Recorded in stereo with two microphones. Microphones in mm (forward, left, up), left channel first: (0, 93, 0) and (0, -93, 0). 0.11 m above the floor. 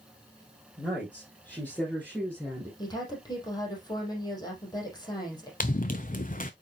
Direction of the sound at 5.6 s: 45° left (ahead or behind).